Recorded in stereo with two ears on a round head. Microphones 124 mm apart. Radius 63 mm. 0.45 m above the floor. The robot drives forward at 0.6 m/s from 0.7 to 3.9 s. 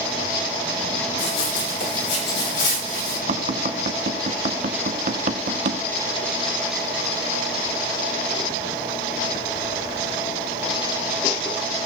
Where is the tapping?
60° right (ahead or behind), 2 m; by 5.8 s 55° right (ahead or behind), 2 m.